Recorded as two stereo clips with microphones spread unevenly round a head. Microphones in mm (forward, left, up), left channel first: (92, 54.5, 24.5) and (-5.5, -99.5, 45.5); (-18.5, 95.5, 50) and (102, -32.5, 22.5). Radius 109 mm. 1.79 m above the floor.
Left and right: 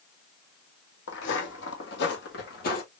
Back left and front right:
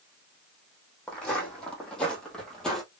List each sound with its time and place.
1.1 s footsteps: 55° left, 3 m; by 2.8 s 60° left, 2 m